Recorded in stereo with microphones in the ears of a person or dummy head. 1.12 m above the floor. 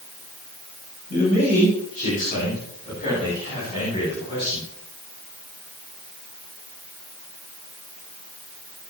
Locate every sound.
1.1 s a man speaking: 40° left (ahead or behind), 8.5 m; by 4.7 s 20° left (ahead or behind), 10 m